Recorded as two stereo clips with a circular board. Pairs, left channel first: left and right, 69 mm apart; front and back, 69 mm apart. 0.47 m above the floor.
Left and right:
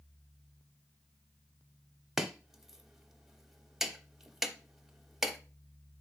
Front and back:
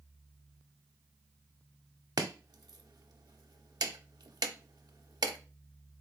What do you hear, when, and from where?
2.2 s chopping: 175° right, 0.5 m